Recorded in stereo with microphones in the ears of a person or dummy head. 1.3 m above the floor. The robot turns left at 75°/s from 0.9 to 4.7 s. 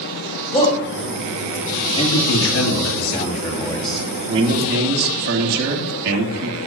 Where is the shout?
35° left (ahead or behind), 6 m.